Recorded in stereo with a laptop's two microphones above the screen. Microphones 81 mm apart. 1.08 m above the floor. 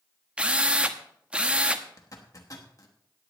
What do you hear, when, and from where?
0.4 s a drill: 15° right (ahead or behind), 0.9 m
2.0 s a zipper: 45° left (ahead or behind), 1.2 m